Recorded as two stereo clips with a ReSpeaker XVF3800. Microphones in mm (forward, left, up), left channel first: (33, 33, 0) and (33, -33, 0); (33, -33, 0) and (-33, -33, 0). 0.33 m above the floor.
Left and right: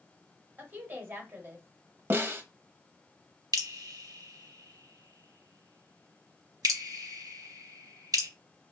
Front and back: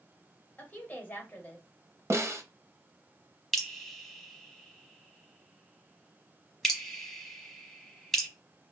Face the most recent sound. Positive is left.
turn(degrees=-90)